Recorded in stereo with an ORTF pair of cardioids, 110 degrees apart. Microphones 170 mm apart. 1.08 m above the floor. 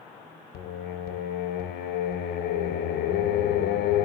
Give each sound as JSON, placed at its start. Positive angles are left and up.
{"t": 0.5, "sound": "singing", "azimuth_deg": 65, "distance_m": 0.7}